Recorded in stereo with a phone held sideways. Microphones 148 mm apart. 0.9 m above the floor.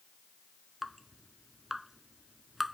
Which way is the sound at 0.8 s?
Centre (ahead or behind).